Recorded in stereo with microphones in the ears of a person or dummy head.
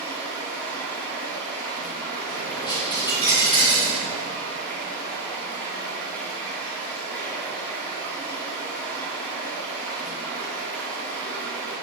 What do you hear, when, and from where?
0.0 s running water: 10° left (ahead or behind), 2 m
2.3 s a dropped coin: 25° left (ahead or behind), 1.4 m